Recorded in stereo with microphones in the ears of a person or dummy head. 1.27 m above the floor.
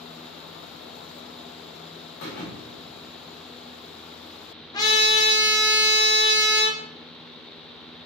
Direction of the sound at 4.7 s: 15° left (ahead or behind).